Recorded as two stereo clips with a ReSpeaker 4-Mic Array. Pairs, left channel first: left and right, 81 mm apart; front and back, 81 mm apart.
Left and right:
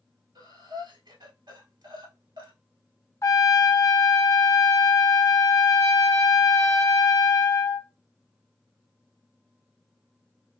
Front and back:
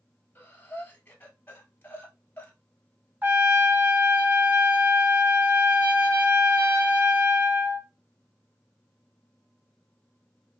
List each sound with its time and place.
0.3 s breathing: 60° right, 1.2 m
3.2 s a trumpet: 125° left, 0.7 m